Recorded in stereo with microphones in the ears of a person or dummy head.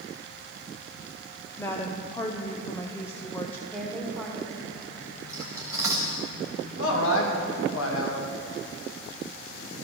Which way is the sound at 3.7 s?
Centre (ahead or behind).